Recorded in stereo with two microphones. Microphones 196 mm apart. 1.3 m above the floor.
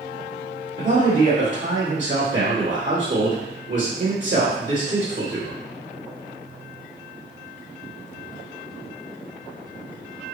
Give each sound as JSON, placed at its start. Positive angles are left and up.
{"t": 0.8, "sound": "a man speaking", "side_deg": -70, "distance_m": 1.5}